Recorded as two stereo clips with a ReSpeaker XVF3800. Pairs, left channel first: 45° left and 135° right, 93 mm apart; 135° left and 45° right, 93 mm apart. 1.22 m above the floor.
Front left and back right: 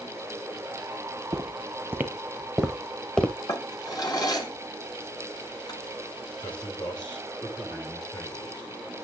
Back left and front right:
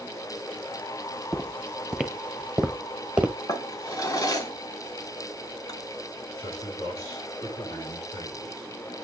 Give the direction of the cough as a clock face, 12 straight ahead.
I don't hear a cough.